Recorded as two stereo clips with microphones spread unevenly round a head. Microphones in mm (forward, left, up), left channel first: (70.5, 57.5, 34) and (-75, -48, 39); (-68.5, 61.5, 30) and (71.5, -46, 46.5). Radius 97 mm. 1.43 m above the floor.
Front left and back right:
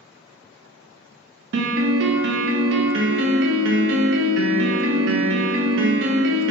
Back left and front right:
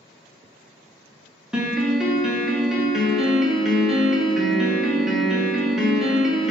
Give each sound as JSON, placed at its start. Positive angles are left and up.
{"t": 1.5, "sound": "a piano", "azimuth_deg": -125, "distance_m": 0.6}